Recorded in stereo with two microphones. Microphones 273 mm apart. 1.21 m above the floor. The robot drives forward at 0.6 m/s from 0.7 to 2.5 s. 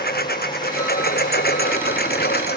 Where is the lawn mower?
40° left (ahead or behind).